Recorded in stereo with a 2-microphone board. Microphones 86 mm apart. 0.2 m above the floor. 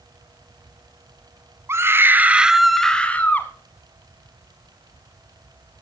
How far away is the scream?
About 1.4 m.